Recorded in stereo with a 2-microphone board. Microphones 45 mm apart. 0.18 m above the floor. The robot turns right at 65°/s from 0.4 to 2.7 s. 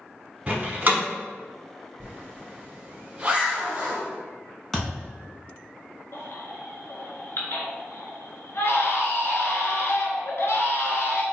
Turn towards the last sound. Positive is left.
turn(degrees=65)  # may be behind; listen again after turning